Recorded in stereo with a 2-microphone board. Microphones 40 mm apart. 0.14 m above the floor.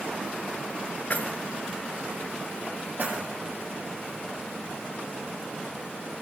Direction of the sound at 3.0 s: 40° right (ahead or behind).